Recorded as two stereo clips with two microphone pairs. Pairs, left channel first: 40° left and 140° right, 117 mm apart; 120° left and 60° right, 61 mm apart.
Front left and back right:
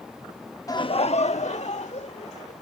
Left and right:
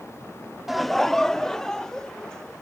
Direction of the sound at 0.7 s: 20° left.